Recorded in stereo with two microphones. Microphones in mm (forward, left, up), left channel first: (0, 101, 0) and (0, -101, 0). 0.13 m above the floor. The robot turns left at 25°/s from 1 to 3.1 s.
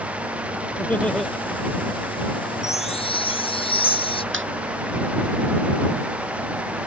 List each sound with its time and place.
0.8 s laughter: 5° left (ahead or behind); by 1.3 s centre (ahead or behind)
2.6 s a chime: 35° left (ahead or behind); by 4.2 s 25° left (ahead or behind)
4.3 s laughter: 75° right (ahead or behind)